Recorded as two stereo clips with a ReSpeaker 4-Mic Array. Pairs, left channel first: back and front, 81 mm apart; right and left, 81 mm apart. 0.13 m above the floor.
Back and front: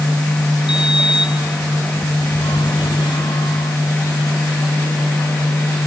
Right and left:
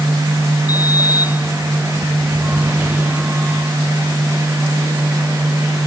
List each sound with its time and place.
0.7 s a sliding door: 160° left